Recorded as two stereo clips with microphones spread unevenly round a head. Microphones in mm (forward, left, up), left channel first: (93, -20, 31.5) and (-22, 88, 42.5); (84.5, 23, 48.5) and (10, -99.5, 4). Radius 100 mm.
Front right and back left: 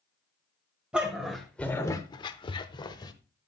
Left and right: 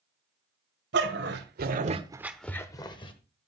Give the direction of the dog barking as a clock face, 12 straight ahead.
5 o'clock.